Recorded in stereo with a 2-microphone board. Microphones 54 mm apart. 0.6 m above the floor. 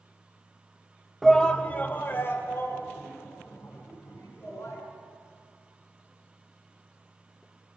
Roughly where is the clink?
I don't hear a clink.